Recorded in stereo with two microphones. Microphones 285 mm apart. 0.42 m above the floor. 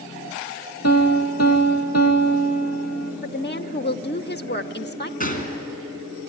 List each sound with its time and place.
0.8 s a piano: 60° left (ahead or behind), 2.5 m
3.2 s a woman speaking: 35° left (ahead or behind), 0.9 m
5.2 s a gunshot: 30° left (ahead or behind), 3 m